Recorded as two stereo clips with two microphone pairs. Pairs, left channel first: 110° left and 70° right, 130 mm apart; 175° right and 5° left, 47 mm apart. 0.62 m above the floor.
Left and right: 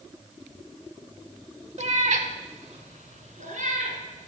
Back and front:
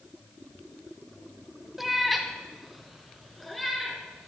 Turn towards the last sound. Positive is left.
turn(degrees=-85)